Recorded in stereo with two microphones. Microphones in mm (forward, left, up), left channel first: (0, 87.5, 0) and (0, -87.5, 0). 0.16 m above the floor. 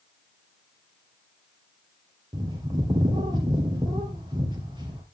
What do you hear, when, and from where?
2.3 s a bird: 25° right (ahead or behind), 2.5 m